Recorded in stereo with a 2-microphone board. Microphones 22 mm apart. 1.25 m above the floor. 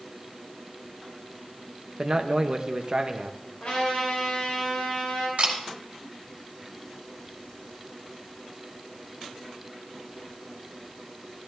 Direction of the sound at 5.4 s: 85° right.